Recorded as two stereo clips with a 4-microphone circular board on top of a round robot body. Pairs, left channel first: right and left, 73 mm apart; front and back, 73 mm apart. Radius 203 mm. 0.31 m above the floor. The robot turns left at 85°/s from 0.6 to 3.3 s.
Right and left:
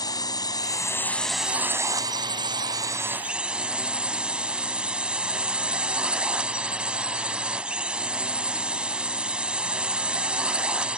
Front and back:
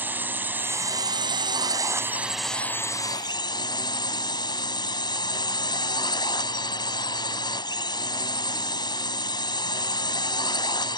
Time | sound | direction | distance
0.0 | a drone | 115° right | ?